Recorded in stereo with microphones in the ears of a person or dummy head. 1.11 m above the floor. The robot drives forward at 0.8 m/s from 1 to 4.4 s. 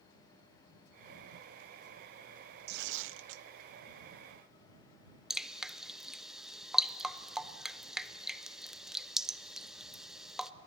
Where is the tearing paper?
60° right (ahead or behind), 0.8 m; by 3.5 s 70° right (ahead or behind), 0.7 m.